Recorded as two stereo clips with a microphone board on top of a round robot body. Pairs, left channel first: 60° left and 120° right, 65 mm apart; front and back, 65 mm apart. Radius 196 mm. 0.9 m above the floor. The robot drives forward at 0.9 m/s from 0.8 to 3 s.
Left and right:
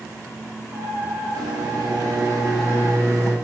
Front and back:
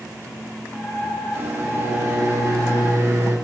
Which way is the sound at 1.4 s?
125° right.